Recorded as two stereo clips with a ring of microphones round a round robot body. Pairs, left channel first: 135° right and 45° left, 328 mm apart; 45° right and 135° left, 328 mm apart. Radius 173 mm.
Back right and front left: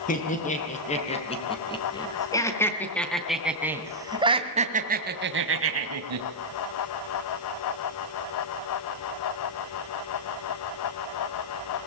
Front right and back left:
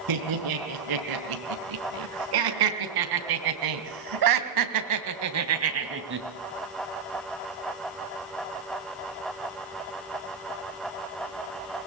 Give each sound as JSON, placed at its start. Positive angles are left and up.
{"t": 0.1, "sound": "laughter", "azimuth_deg": 160, "distance_m": 5.0}